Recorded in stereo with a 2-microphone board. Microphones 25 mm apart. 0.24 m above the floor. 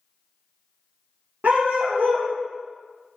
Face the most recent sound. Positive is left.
turn(degrees=-85)